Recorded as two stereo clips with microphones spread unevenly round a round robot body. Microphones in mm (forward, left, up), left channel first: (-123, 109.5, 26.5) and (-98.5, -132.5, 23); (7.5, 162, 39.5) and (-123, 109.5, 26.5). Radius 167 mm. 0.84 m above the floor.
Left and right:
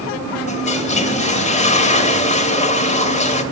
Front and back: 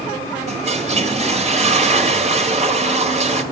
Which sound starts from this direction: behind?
A toilet flushing, at 0.5 s.